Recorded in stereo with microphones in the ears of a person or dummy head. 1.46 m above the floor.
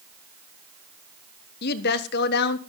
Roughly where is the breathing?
No breathing in this recording.